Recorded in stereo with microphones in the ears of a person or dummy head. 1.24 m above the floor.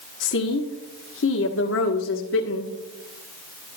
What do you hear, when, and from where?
0.2 s a woman speaking: 60° left (ahead or behind), 1.2 m